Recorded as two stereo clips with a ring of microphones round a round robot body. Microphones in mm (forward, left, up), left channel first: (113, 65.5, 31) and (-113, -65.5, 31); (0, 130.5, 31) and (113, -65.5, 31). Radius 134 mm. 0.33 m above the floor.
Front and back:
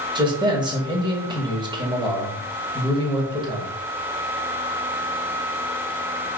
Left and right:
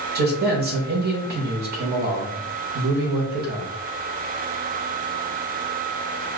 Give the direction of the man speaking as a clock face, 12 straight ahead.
3 o'clock.